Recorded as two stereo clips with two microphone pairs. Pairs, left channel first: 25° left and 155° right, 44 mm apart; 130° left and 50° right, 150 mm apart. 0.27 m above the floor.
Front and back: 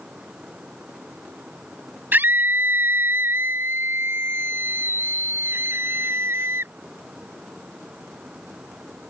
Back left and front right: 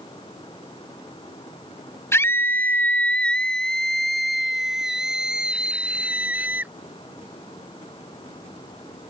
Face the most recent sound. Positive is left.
turn(degrees=-130)